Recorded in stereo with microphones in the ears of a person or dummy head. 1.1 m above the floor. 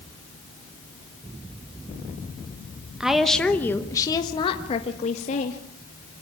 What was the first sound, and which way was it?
A woman speaking, 5° right (ahead or behind).